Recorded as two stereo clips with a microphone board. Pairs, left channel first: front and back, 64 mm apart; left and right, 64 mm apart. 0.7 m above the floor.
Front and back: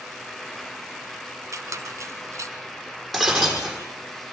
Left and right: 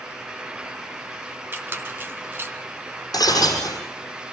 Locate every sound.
1.5 s a squeak: 145° right, 1.6 m
3.1 s breaking glass: 90° left, 6 m